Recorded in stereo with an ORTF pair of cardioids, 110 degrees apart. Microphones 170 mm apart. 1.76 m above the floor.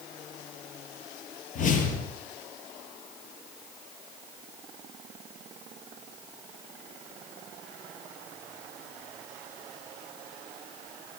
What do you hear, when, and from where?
1.6 s a whoosh: 55° left, 7.5 m